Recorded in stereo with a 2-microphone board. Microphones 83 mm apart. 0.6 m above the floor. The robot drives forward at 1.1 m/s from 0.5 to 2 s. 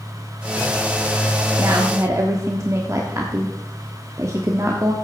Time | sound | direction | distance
1.6 | a woman speaking | 40° right (ahead or behind) | 1.5 m